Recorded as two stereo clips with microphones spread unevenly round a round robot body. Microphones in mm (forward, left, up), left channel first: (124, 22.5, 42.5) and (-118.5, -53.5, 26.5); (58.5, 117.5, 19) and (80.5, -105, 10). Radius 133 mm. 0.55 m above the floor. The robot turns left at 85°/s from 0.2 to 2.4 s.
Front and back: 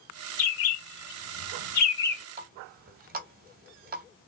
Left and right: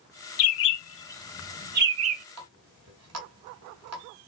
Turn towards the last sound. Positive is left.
turn(degrees=-110)